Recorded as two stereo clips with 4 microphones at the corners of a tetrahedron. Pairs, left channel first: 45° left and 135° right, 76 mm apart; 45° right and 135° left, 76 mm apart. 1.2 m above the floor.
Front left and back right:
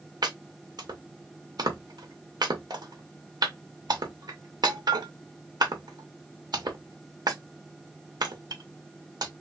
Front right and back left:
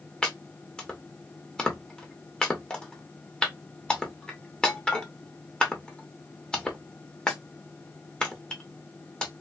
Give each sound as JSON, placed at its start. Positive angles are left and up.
{"t": 0.2, "sound": "chopping", "azimuth_deg": -120, "distance_m": 1.1}